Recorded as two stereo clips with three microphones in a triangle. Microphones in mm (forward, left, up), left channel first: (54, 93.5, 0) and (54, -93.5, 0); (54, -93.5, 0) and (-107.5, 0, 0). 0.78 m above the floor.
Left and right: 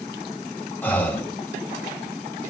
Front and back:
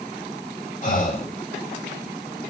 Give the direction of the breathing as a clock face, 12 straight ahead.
12 o'clock.